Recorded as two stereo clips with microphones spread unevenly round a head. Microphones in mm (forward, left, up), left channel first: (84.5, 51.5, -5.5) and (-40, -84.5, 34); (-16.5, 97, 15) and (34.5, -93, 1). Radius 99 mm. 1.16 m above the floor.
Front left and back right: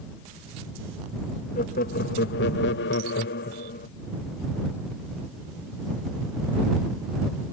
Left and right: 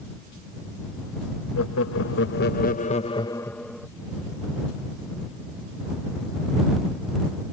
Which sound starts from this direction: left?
Laughter, at 1.6 s.